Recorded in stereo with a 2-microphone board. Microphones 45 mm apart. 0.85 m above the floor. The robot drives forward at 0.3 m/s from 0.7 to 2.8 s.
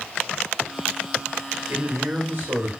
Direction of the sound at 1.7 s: 50° right (ahead or behind).